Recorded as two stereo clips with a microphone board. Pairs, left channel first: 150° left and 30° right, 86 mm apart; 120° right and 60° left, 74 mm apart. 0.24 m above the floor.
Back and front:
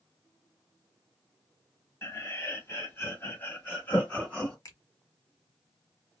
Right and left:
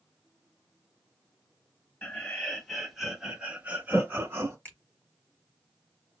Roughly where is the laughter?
Behind.